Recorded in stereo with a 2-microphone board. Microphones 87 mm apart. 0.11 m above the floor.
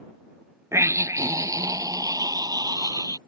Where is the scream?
30° right (ahead or behind); by 3.2 s 50° right (ahead or behind).